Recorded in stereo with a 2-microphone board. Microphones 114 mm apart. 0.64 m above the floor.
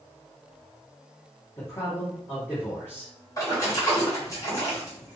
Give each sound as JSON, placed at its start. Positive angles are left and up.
{"t": 1.6, "sound": "a man speaking", "side_deg": 25, "distance_m": 1.8}
{"t": 3.4, "sound": "a splash", "side_deg": 30, "distance_m": 1.8}